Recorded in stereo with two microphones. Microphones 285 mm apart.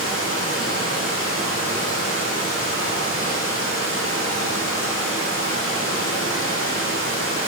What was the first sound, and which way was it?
Running water, 40° left (ahead or behind).